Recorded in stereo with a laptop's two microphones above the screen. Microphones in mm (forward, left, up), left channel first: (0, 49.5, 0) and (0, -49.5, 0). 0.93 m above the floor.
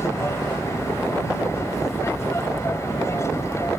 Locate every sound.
0.0 s an aircraft: 25° left (ahead or behind)